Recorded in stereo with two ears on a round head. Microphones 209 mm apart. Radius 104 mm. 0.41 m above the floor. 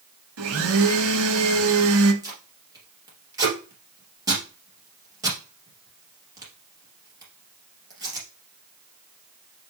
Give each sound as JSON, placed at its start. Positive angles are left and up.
{"t": 0.4, "sound": "a blender", "side_deg": -65, "distance_m": 1.2}
{"t": 2.2, "sound": "tape being pulled", "side_deg": -15, "distance_m": 2.5}